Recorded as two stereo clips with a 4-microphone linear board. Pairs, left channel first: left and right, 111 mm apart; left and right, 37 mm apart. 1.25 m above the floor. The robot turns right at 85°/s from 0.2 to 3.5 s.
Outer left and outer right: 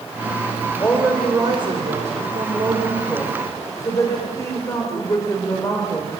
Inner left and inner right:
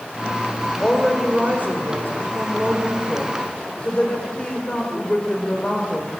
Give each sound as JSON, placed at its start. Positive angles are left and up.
{"t": 0.8, "sound": "a woman speaking", "azimuth_deg": 160, "distance_m": 4.5}